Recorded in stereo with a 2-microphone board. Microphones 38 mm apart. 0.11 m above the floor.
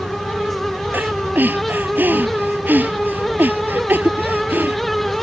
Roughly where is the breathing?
Right.